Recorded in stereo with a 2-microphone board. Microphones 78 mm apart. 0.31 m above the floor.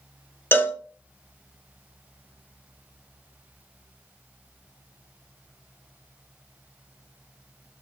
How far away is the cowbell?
About 0.5 m.